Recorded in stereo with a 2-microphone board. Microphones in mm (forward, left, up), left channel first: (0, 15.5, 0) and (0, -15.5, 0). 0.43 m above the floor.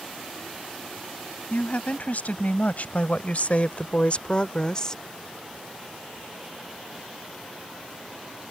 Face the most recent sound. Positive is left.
turn(degrees=20)  # may be behind; listen again after turning